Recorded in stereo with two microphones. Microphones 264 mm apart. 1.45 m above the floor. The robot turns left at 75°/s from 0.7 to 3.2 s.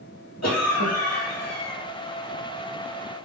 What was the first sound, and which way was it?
A cough, 80° left.